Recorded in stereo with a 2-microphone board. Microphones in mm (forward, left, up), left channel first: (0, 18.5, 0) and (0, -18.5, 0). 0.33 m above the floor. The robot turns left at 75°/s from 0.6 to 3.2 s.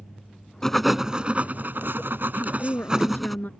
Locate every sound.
0.6 s writing: 10° left; by 3.4 s straight behind
2.4 s a woman speaking: 115° left; by 3.5 s 50° left